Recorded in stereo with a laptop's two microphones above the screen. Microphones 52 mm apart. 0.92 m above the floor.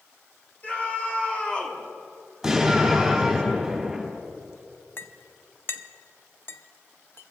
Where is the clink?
50° left (ahead or behind), 0.5 m.